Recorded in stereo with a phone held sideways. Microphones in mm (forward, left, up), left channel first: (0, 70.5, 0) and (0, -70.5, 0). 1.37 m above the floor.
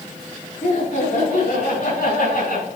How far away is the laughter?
About 3 m.